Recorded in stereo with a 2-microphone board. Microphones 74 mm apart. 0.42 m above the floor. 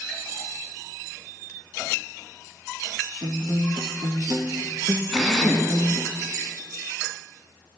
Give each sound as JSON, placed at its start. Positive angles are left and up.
{"t": 3.2, "sound": "a guitar", "side_deg": -75, "distance_m": 2.5}
{"t": 5.1, "sound": "a drill", "side_deg": 0, "distance_m": 2.5}